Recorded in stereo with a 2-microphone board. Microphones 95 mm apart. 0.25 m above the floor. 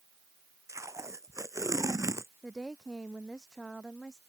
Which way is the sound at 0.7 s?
30° right (ahead or behind).